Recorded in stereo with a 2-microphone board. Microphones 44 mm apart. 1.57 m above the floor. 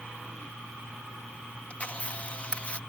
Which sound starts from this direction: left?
A camera shutter, at 1.7 s.